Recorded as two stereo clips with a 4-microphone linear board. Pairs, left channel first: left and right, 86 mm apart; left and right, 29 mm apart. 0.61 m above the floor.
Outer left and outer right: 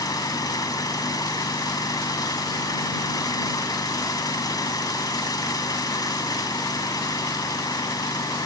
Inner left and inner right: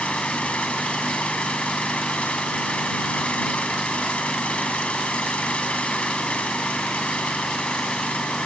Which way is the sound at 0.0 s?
45° left (ahead or behind).